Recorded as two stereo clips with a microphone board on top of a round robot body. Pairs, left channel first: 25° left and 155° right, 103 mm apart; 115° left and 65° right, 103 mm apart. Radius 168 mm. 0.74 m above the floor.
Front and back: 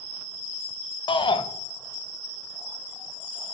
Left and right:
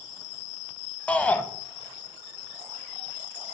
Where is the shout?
40° left, 0.8 m.